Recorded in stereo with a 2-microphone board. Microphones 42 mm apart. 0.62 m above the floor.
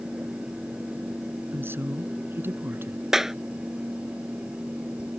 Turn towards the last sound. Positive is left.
turn(degrees=-10)  # may be behind; listen again after turning